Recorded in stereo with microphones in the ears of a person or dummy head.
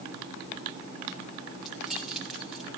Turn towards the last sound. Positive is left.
turn(degrees=0)  # may be behind; listen again after turning